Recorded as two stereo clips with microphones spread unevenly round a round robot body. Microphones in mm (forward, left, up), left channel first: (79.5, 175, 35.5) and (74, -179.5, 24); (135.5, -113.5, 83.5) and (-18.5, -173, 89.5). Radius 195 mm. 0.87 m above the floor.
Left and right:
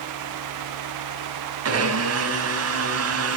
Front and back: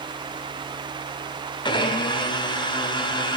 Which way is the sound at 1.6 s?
40° right.